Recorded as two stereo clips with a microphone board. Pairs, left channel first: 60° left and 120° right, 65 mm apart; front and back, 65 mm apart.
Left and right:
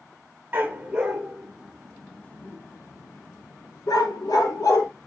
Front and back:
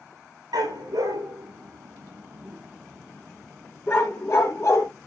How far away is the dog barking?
About 3 m.